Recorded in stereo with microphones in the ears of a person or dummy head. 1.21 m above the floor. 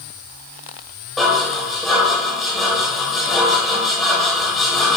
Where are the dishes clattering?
5° left (ahead or behind), 3.5 m.